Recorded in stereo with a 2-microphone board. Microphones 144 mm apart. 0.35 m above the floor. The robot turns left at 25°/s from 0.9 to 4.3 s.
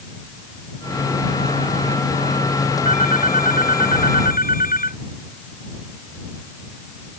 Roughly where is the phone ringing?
Behind left.